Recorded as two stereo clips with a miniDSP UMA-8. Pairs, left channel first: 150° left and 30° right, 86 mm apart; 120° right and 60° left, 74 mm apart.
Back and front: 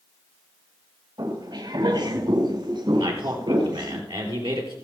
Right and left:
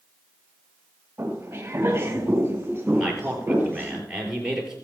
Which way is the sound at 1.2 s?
Straight ahead.